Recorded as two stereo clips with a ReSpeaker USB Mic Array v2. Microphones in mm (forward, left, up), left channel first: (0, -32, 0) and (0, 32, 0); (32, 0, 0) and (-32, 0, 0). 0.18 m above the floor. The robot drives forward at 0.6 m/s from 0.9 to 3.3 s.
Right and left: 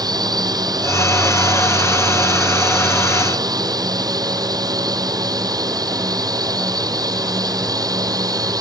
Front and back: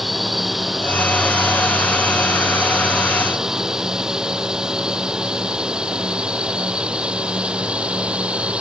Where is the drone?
90° left; by 8.6 s 105° left.